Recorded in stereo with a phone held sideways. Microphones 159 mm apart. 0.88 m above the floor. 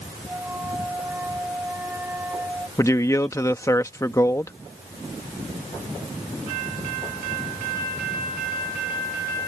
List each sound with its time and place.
0.3 s a flute: 10° right (ahead or behind)
2.8 s a man speaking: 20° left (ahead or behind)